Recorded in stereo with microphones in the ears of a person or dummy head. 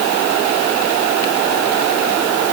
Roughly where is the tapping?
I don't hear tapping.